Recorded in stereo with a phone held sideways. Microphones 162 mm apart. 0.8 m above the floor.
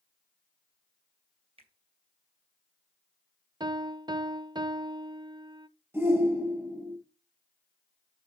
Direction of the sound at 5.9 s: 15° right (ahead or behind).